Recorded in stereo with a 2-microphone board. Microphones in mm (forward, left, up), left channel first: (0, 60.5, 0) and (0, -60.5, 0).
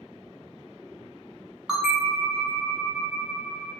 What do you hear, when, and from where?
1.7 s a bell: 5° right (ahead or behind), 0.8 m